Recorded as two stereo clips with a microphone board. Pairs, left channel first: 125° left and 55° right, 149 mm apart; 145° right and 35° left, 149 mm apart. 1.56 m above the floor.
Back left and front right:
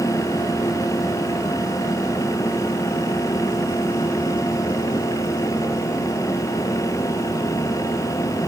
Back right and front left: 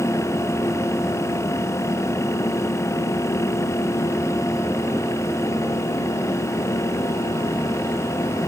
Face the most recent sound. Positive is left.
No sound to turn to.